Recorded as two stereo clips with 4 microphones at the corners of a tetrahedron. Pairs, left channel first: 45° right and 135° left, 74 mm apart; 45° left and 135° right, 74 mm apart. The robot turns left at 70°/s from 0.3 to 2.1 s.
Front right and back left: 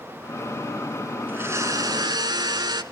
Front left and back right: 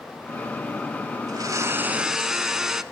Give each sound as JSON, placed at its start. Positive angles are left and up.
{"t": 1.3, "sound": "a blender", "azimuth_deg": -160, "distance_m": 0.8}